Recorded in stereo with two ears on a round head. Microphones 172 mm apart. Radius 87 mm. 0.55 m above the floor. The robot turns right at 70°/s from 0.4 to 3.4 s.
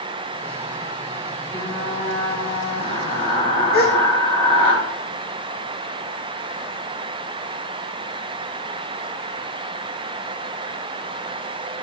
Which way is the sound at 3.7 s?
50° left (ahead or behind).